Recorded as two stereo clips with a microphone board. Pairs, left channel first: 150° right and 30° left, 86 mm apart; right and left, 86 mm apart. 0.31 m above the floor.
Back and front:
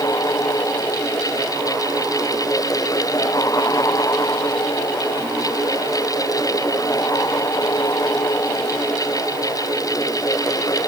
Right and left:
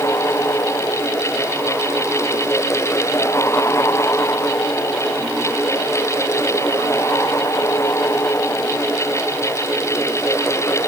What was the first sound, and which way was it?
Only background noise.